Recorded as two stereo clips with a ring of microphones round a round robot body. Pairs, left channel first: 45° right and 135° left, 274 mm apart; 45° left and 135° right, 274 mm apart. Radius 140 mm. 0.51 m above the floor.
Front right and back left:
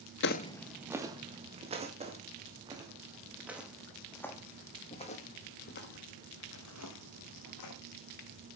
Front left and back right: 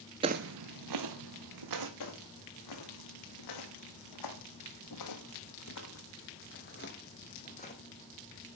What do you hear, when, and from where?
0.2 s footsteps: 70° right, 0.6 m; by 1.9 s 155° right, 2.5 m
2.0 s footsteps: 65° left, 2.5 m; by 7.8 s 20° right, 2 m